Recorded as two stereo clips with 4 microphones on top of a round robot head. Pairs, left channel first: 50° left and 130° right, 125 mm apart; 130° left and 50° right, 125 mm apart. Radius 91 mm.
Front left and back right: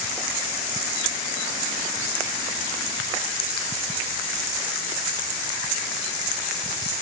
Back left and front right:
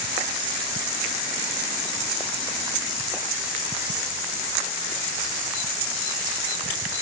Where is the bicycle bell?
No bicycle bell in this recording.